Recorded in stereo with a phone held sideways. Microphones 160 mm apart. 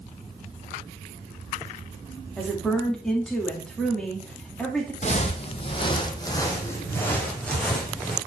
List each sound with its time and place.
2.4 s a woman speaking: 5° left (ahead or behind), 2.5 m
5.0 s footsteps: 45° left (ahead or behind), 1.4 m; by 8.2 s centre (ahead or behind), 2.5 m